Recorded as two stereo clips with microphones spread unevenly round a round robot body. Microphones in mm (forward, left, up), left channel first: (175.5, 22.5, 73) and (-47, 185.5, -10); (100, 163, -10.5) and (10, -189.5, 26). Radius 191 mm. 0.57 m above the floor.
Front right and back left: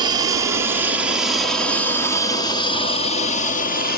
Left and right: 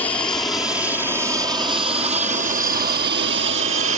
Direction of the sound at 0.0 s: 150° left.